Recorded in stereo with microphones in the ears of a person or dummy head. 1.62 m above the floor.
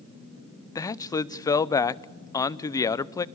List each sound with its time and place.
0.8 s a man speaking: 20° left (ahead or behind), 0.5 m